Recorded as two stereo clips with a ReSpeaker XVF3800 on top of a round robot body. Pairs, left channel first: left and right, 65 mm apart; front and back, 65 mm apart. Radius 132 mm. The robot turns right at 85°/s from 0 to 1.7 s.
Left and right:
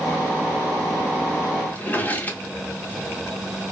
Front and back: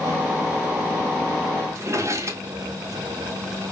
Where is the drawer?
150° left, 0.9 m.